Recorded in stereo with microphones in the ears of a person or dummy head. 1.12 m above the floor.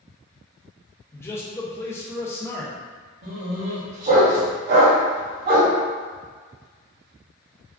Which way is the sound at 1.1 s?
10° left (ahead or behind).